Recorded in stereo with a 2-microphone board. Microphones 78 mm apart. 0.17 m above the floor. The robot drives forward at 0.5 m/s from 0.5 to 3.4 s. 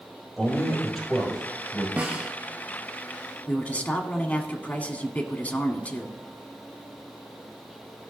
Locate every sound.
0.4 s a man speaking: 5° left (ahead or behind), 3.5 m
2.0 s a snare drum: 15° right (ahead or behind), 1.5 m
3.5 s a man speaking: 20° left (ahead or behind), 1.2 m